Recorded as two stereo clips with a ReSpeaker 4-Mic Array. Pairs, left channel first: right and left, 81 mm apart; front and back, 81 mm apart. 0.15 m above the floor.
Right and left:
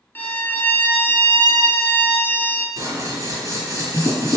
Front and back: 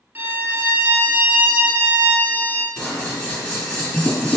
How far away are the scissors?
About 1.3 m.